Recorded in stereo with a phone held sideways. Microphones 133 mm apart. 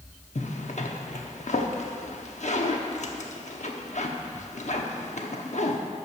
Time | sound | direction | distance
0.3 | a zipper | 60° left (ahead or behind) | 0.9 m